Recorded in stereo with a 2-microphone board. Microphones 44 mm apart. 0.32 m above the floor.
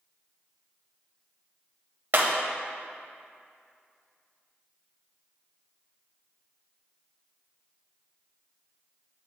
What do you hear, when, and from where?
2.1 s breaking glass: 50° right (ahead or behind), 0.7 m